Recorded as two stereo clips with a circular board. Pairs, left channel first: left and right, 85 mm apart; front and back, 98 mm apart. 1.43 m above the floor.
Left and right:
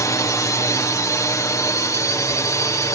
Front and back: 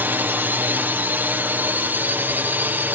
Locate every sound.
0.0 s a drone: 115° left